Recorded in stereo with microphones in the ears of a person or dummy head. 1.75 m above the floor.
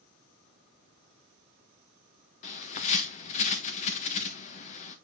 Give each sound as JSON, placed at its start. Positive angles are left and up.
{"t": 2.4, "sound": "a bird", "side_deg": 40, "distance_m": 1.1}